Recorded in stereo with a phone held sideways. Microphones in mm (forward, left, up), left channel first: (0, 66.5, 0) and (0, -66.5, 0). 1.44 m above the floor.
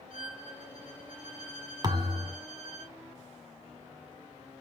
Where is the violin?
75° left (ahead or behind), 3.5 m.